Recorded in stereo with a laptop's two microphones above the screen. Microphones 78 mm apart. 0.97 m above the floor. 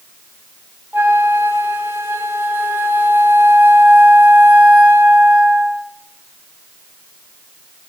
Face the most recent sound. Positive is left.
turn(degrees=-25)  # may be behind; listen again after turning